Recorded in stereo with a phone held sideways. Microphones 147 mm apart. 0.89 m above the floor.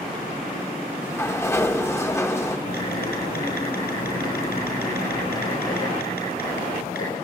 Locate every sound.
1.0 s a sliding door: 15° left (ahead or behind), 1.0 m
2.7 s typing on a keyboard: 90° left, 9.5 m